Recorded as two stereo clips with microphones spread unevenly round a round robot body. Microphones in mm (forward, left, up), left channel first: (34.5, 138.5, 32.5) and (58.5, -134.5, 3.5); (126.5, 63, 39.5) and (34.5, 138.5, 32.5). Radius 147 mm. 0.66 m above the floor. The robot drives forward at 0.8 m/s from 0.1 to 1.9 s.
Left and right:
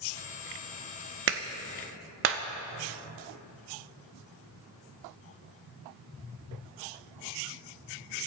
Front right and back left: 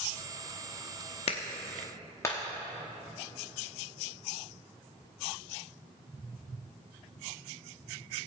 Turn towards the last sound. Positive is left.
turn(degrees=-105)